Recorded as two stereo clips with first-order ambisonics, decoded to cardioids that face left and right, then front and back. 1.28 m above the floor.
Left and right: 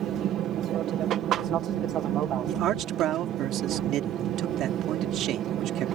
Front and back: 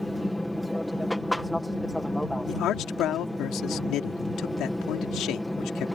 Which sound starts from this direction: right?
An aircraft, at 0.0 s.